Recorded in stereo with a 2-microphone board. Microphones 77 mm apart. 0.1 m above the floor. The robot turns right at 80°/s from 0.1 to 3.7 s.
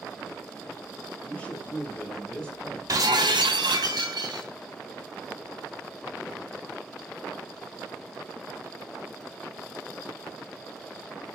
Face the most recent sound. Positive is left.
turn(degrees=-70)